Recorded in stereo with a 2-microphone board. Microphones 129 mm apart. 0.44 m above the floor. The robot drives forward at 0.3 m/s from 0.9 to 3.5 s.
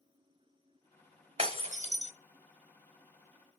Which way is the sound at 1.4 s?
45° right (ahead or behind).